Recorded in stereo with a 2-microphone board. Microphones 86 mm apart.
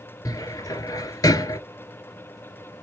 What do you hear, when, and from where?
0.2 s a cupboard door: 45° left (ahead or behind), 0.6 m